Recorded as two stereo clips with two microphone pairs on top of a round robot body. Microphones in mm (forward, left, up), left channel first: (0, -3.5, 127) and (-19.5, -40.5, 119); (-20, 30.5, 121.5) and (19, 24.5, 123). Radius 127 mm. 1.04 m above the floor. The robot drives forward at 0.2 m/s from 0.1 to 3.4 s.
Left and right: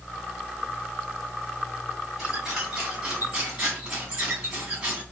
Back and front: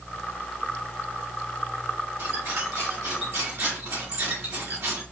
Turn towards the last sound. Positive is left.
turn(degrees=-45)